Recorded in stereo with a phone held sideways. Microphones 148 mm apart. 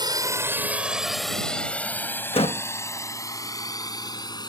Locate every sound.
0.0 s a drone: 25° right (ahead or behind); by 4.5 s 30° left (ahead or behind)
2.3 s a door slam: 40° left (ahead or behind)